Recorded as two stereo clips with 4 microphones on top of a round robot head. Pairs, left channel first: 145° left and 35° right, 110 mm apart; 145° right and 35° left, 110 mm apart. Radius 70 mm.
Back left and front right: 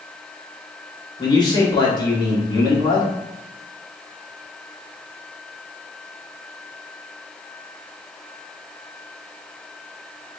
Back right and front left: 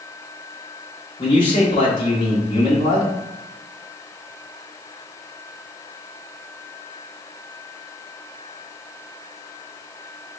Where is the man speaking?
175° right, 1.4 m.